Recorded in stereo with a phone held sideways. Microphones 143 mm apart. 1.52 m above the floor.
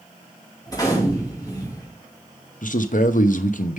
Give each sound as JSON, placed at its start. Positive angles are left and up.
{"t": 0.7, "sound": "a gunshot", "side_deg": 25, "distance_m": 2.5}
{"t": 2.6, "sound": "a man speaking", "side_deg": 65, "distance_m": 0.8}